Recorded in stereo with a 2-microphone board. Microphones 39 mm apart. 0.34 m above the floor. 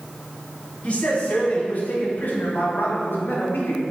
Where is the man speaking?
35° left (ahead or behind), 2.5 m; by 3.8 s 65° left (ahead or behind), 1.9 m.